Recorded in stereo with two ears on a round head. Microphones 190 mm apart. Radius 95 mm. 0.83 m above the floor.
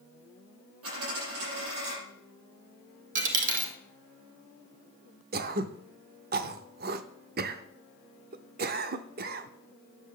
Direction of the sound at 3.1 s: 40° right (ahead or behind).